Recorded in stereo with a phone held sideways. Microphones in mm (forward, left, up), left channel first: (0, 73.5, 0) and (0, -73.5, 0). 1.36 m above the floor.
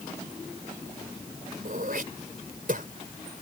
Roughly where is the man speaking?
I don't hear a man speaking.